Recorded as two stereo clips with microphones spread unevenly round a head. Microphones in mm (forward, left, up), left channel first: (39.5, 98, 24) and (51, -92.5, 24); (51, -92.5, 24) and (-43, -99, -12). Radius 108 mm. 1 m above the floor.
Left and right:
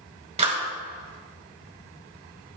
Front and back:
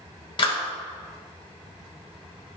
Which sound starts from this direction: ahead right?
A clap, at 0.4 s.